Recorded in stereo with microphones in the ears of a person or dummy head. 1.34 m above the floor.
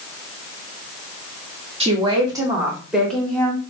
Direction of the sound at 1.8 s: 30° right (ahead or behind).